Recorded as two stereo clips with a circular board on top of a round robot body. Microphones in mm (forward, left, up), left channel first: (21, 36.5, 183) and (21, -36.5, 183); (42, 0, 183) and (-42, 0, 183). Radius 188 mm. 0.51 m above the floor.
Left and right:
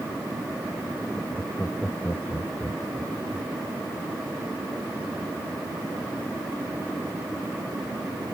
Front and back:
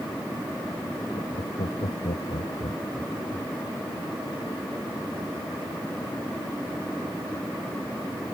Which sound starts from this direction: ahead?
Laughter, at 1.1 s.